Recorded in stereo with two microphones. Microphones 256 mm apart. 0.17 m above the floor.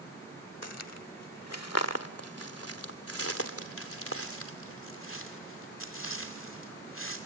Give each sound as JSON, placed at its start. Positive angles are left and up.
{"t": 0.6, "sound": "footsteps", "side_deg": 80, "distance_m": 0.7}